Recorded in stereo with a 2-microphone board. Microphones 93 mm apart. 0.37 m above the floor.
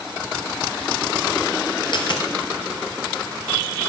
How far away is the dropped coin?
About 2.5 m.